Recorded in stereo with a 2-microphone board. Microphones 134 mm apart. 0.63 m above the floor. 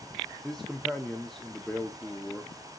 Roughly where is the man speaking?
Centre.